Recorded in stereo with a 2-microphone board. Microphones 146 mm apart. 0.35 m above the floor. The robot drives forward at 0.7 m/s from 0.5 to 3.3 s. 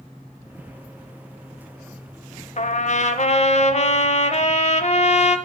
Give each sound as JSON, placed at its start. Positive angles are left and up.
{"t": 2.6, "sound": "a trumpet", "side_deg": 55, "distance_m": 0.7}